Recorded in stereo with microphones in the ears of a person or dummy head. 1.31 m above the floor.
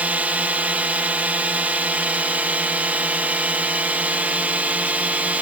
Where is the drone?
5° right (ahead or behind).